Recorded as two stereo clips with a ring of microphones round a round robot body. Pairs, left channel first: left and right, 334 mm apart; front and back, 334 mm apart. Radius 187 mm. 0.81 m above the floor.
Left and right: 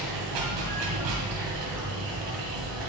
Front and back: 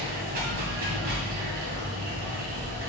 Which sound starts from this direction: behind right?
Running water, at 0.0 s.